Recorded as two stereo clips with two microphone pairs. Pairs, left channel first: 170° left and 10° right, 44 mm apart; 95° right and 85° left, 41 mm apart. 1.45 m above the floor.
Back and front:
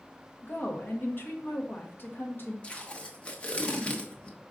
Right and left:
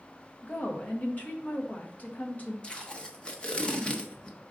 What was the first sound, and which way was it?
A woman speaking, 145° right.